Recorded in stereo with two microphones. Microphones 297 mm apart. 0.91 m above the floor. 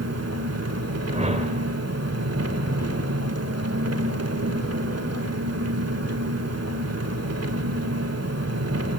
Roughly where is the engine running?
Right.